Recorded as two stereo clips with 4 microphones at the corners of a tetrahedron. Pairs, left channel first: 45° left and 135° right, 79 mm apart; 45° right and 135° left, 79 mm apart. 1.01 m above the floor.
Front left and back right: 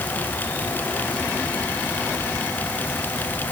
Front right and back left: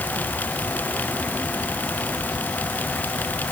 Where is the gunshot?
No gunshot in this recording.